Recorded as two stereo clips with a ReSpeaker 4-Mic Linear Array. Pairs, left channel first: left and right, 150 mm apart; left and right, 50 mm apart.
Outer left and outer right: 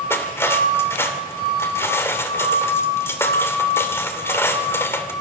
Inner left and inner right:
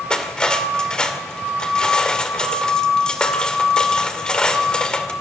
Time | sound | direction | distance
0.1 | cutlery clinking | 15° left (ahead or behind) | 2.5 m